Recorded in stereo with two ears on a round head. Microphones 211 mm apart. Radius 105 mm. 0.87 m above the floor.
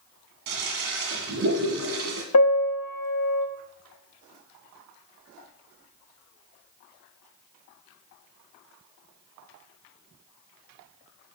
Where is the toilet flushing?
65° right (ahead or behind), 1.6 m.